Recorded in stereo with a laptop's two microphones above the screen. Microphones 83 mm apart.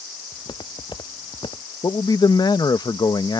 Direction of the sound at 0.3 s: 65° left (ahead or behind).